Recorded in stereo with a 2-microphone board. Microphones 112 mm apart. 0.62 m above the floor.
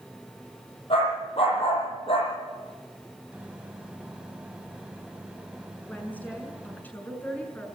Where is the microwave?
10° right (ahead or behind), 2.5 m.